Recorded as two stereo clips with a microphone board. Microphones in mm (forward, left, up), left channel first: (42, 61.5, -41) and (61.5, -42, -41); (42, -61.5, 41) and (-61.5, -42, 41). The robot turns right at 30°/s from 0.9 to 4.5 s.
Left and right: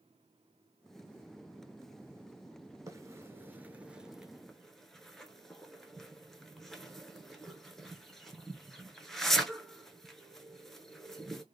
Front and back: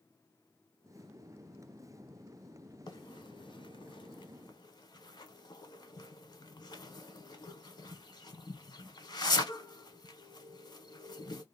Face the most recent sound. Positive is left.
turn(degrees=15)